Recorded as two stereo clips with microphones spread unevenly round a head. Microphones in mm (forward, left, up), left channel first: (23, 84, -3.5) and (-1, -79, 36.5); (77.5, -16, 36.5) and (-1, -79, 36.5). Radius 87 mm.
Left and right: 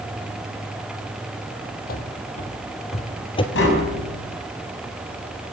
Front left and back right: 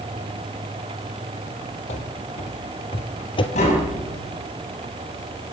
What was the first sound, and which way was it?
Running footsteps, 40° left.